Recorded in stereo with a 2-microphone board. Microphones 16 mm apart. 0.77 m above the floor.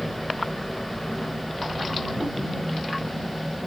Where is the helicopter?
20° left (ahead or behind).